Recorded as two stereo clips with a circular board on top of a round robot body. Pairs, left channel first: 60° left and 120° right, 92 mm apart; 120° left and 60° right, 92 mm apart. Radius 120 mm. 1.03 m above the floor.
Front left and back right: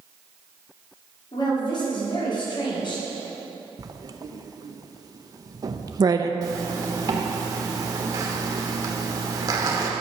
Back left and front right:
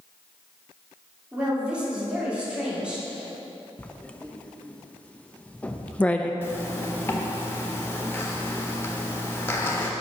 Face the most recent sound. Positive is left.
turn(degrees=-170)